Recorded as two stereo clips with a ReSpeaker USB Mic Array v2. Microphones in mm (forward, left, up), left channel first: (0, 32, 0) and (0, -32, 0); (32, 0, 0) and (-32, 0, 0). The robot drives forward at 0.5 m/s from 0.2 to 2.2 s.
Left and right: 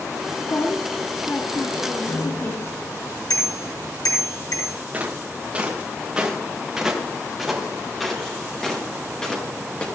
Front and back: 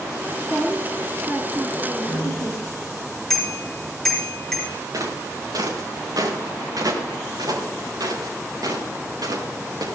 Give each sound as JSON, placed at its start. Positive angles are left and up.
{"t": 0.4, "sound": "a woman speaking", "azimuth_deg": 110, "distance_m": 2.5}
{"t": 2.1, "sound": "a bicycle bell", "azimuth_deg": 85, "distance_m": 5.5}
{"t": 4.9, "sound": "footsteps", "azimuth_deg": -155, "distance_m": 5.0}